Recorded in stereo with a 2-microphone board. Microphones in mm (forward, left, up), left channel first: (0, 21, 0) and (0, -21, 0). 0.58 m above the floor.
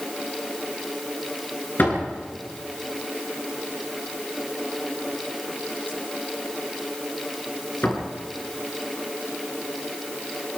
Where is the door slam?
50° left (ahead or behind), 7 m.